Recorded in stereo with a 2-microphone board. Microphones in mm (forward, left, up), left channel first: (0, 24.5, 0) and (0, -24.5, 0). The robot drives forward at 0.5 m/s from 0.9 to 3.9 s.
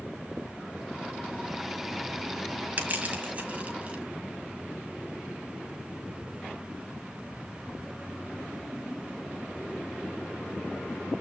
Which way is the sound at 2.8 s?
35° right (ahead or behind).